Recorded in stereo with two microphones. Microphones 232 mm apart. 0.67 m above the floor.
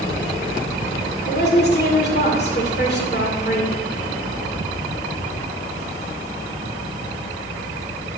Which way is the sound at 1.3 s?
45° left (ahead or behind).